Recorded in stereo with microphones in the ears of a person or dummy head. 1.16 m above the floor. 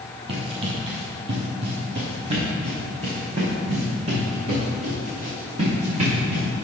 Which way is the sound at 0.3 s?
30° right (ahead or behind).